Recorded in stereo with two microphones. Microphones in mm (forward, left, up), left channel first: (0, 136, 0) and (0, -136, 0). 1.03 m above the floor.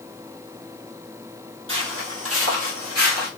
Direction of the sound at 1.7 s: 45° right (ahead or behind).